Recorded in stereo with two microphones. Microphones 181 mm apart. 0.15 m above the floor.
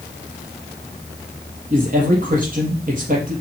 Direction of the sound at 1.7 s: 50° right (ahead or behind).